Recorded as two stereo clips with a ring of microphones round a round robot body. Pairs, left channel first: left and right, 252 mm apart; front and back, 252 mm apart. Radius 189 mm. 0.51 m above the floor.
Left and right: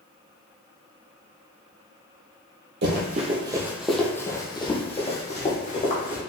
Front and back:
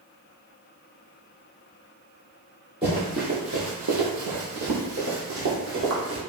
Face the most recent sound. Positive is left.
turn(degrees=145)